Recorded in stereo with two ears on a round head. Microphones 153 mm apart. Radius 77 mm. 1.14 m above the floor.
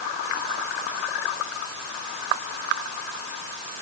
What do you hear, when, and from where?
Only background noise.